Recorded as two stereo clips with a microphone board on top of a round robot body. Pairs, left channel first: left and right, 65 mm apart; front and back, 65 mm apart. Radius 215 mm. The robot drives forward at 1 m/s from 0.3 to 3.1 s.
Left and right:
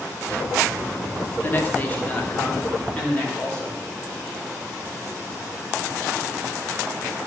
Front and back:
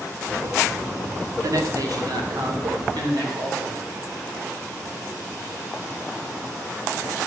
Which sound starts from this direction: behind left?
A man speaking, at 1.4 s.